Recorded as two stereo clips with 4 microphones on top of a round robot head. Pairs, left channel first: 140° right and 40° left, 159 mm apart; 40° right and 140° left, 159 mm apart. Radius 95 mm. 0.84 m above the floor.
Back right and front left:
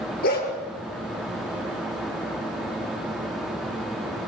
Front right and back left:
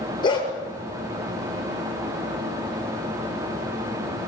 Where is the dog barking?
105° right, 7.5 m.